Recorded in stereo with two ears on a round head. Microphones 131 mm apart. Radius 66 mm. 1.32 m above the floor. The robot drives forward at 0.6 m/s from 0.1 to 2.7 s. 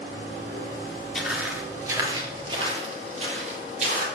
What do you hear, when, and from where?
1.1 s footsteps: centre (ahead or behind), 1.3 m; by 4.0 s 55° right (ahead or behind), 3 m